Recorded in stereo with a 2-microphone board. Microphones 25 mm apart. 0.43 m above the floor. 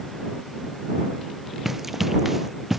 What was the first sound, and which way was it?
Running footsteps, 10° right (ahead or behind).